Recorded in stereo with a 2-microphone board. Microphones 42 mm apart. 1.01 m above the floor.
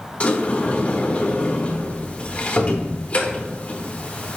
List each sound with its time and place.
0.2 s a sliding door: 30° left (ahead or behind), 0.6 m